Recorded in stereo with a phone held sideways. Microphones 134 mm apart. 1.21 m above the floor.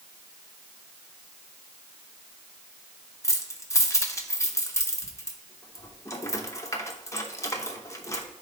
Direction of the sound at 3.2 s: 25° left (ahead or behind).